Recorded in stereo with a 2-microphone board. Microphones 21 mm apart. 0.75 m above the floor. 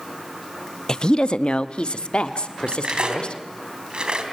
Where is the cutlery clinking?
45° right (ahead or behind), 3 m.